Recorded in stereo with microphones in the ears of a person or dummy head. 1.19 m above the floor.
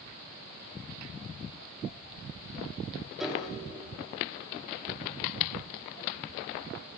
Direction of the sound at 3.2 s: 5° left (ahead or behind).